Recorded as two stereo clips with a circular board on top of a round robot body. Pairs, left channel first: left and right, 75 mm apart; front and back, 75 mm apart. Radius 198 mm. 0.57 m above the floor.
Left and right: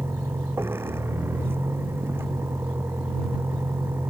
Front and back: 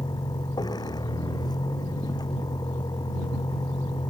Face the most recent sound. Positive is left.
turn(degrees=-30)